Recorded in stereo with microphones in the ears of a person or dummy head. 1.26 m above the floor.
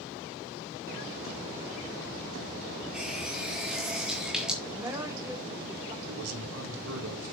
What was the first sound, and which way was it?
A running tap, centre (ahead or behind).